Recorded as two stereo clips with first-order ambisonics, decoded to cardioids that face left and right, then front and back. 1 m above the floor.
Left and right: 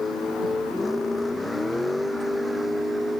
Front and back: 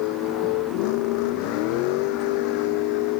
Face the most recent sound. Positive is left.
turn(degrees=-5)